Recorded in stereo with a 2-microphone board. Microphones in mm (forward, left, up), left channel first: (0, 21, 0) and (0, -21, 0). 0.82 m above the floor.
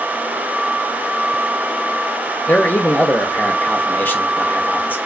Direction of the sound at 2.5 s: 55° left (ahead or behind).